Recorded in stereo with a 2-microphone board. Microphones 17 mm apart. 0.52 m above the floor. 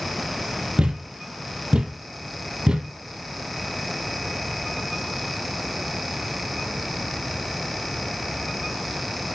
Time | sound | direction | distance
0.8 | a thud | 70° right (ahead or behind) | 1.3 m